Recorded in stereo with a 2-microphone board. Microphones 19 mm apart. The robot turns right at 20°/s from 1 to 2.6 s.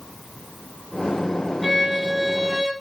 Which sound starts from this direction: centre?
A violin, at 1.6 s.